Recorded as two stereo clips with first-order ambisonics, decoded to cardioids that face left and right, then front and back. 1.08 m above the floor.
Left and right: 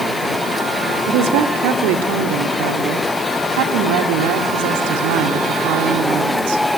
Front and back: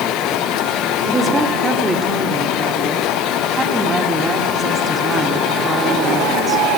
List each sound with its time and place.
1.1 s a woman speaking: 100° right, 2.5 m